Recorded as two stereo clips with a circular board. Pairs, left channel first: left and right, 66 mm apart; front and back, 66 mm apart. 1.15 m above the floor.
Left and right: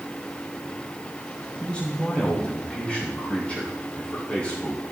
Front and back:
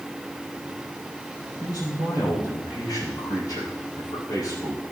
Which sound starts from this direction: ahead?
A man speaking, at 1.6 s.